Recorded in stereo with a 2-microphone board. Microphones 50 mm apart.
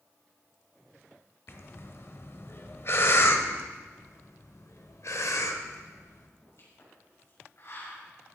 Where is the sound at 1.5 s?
50° left (ahead or behind), 1.0 m.